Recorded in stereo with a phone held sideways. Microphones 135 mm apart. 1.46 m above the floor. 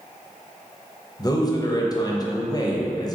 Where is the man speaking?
30° left (ahead or behind), 0.6 m.